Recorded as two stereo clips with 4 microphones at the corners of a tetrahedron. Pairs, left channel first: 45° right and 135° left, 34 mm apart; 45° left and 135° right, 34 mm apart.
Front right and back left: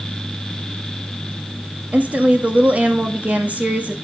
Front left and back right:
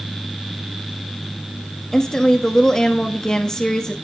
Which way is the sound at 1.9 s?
115° left.